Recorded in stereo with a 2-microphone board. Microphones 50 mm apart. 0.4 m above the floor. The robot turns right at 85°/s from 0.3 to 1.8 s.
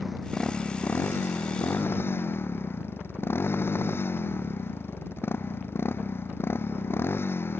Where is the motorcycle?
5° right; by 7.6 s 125° left.